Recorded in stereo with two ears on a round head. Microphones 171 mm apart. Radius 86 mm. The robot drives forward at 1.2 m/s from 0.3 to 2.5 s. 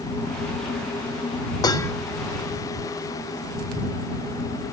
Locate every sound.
1.6 s dishes clattering: 20° left (ahead or behind); by 1.9 s 15° left (ahead or behind)